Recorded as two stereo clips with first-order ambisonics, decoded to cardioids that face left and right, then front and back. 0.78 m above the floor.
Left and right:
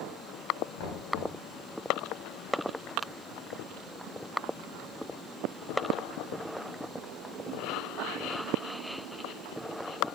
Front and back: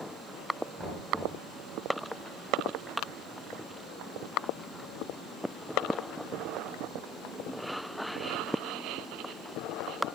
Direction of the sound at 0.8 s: 90° left.